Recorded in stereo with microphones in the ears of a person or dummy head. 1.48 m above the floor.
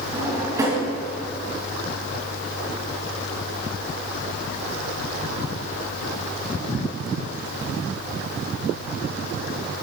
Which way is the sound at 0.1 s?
10° right (ahead or behind).